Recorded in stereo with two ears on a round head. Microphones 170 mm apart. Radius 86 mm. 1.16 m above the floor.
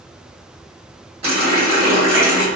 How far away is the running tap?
About 1.2 m.